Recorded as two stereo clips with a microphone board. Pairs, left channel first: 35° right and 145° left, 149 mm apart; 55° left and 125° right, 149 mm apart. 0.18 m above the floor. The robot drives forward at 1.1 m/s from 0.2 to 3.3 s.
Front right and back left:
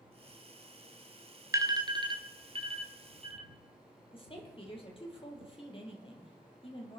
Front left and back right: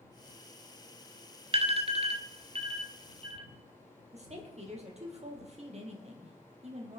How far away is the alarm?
About 1.4 m.